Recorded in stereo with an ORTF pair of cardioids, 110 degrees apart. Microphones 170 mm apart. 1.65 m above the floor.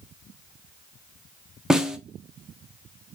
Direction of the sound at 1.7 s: 5° right.